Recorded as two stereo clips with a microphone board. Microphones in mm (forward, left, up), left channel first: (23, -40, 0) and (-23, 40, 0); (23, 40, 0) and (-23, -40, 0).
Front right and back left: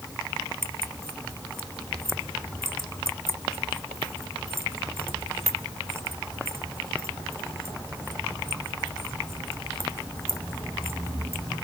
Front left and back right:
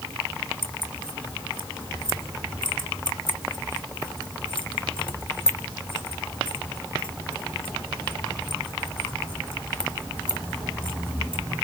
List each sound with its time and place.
0.6 s keys jangling: 65° left, 1.5 m